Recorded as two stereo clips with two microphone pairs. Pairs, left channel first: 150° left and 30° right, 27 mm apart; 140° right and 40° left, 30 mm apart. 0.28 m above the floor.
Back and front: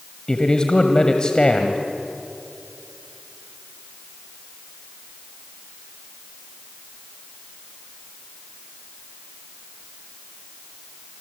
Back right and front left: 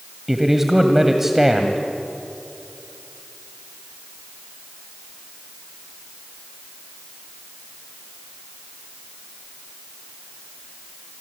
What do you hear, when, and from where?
0.3 s a man speaking: 110° left, 1.6 m